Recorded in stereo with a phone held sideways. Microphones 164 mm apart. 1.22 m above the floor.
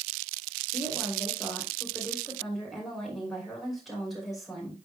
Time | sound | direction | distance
0.7 | a woman speaking | centre (ahead or behind) | 3 m